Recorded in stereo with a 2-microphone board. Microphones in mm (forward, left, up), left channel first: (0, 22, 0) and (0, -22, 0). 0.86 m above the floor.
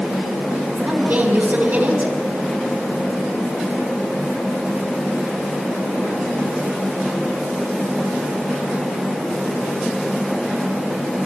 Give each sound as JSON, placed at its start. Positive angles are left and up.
{"t": 0.8, "sound": "a woman speaking", "side_deg": -45, "distance_m": 7.5}